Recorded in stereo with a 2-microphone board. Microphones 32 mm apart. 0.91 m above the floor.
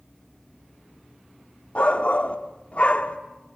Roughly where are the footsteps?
I don't hear footsteps.